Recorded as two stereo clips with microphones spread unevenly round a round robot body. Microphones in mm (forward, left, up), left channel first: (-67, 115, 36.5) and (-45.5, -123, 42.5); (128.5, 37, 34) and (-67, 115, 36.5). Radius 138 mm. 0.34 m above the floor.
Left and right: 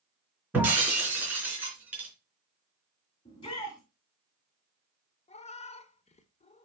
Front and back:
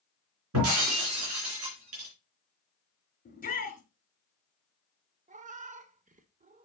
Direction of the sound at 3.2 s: 25° left.